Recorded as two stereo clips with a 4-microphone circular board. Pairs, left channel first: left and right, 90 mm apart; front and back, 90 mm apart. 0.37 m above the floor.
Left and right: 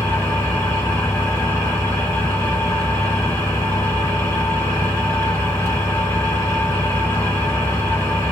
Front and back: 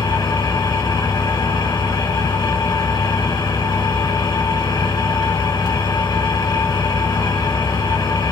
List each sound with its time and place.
0.0 s an engine running: 30° left, 2.5 m